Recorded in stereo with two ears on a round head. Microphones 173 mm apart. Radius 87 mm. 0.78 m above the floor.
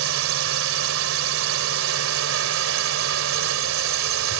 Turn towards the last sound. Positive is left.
turn(degrees=-80)